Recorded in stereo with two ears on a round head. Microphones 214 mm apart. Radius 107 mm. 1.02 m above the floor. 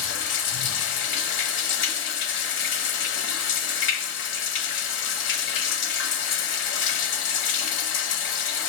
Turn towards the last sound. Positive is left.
turn(degrees=55)  # may be behind; listen again after turning